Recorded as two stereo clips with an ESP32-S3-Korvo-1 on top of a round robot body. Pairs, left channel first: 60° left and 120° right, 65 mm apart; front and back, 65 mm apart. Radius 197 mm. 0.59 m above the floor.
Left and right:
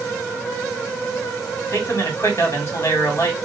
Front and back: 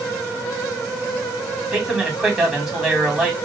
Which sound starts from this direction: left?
A man speaking, at 1.7 s.